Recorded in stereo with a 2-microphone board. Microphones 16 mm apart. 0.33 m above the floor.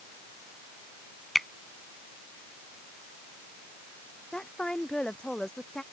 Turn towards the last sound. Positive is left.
turn(degrees=65)  # may be behind; listen again after turning